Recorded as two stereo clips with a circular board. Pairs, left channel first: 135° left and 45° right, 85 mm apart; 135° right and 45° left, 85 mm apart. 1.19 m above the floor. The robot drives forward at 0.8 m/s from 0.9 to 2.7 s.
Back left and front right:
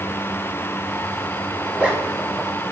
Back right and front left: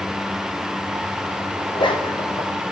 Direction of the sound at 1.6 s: 120° right.